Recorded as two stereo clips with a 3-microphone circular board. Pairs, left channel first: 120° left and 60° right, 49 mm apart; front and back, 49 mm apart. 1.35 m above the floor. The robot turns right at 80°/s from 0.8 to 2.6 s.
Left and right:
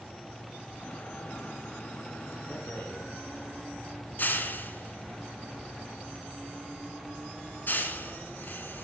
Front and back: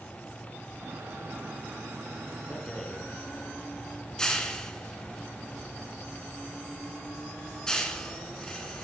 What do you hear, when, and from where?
2.5 s a rattle: 65° left, 2.5 m; by 8.8 s 75° left, 2.5 m